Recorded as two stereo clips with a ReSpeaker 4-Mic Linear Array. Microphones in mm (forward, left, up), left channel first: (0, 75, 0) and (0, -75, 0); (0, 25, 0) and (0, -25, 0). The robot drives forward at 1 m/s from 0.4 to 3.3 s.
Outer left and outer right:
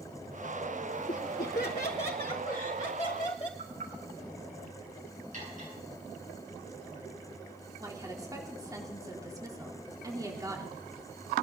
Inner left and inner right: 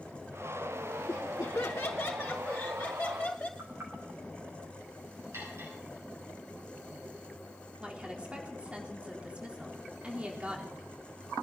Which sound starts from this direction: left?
Laughter, at 1.1 s.